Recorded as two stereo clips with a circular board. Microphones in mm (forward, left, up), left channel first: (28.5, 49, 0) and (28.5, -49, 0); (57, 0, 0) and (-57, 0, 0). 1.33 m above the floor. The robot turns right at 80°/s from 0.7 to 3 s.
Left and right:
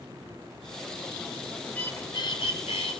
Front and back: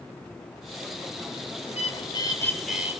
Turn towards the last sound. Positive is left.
turn(degrees=115)